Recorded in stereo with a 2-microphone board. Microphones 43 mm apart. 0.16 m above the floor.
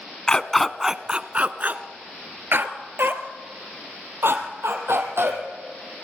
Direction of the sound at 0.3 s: 20° left (ahead or behind).